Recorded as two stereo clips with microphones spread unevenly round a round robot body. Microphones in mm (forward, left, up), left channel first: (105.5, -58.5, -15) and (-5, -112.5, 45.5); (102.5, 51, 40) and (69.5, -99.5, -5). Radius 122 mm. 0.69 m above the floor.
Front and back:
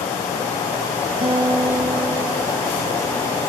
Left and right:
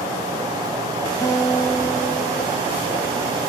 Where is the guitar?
160° left, 0.9 m.